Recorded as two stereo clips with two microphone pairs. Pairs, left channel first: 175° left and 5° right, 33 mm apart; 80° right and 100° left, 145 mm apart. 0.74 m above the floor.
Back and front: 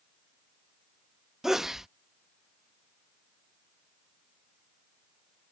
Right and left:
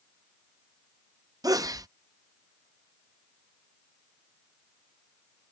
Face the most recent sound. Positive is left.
turn(degrees=65)